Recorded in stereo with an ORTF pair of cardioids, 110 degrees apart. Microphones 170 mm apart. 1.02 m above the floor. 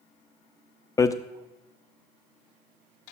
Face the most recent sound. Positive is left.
turn(degrees=20)